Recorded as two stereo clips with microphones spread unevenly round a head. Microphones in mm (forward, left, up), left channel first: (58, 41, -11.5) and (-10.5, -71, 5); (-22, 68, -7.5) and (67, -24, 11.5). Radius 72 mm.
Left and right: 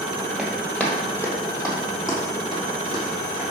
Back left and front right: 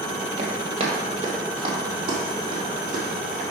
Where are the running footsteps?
40° right, 2.5 m; by 3.4 s 5° left, 5 m.